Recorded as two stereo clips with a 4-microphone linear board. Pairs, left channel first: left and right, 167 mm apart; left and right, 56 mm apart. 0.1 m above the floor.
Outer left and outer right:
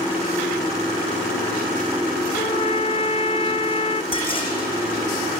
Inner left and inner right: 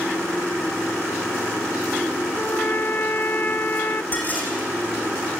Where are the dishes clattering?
30° left (ahead or behind), 3.5 m.